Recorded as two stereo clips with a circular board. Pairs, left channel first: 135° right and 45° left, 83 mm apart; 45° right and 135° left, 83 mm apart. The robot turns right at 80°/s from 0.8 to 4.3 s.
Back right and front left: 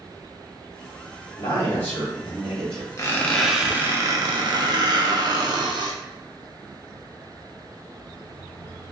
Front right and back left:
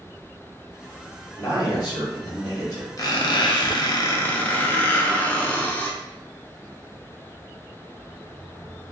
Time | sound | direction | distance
1.4 | a man speaking | 110° right | 1.9 m
3.0 | a squeak | 85° right | 0.6 m